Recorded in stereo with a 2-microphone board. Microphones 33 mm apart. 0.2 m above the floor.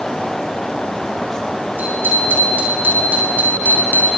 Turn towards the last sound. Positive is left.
turn(degrees=-65)  # may be behind; listen again after turning